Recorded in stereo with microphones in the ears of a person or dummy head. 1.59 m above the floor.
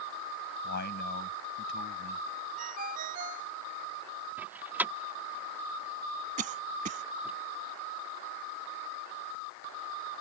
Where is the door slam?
10° right (ahead or behind).